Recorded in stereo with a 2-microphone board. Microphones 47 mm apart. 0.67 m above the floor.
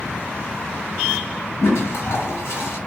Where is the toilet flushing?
70° left (ahead or behind), 1.7 m.